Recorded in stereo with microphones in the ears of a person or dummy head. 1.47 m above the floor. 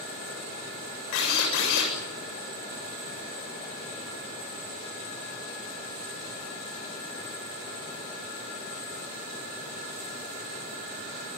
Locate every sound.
1.1 s a drill: 75° left (ahead or behind), 7.5 m